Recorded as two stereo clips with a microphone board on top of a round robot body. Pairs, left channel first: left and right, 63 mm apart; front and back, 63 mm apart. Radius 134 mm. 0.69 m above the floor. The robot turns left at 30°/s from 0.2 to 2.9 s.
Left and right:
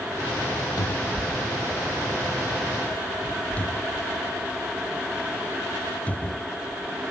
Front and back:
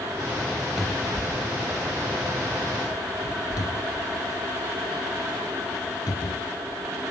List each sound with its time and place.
0.8 s a cupboard door: 85° left; by 7.0 s 20° left